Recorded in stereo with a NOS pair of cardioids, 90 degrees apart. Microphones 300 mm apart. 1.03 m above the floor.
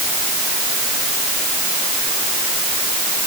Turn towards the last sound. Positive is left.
No sound to turn to.